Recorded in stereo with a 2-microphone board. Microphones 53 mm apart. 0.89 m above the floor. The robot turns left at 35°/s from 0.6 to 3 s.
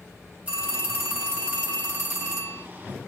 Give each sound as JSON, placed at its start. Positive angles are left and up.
{"t": 0.5, "sound": "a phone ringing", "azimuth_deg": -25, "distance_m": 1.3}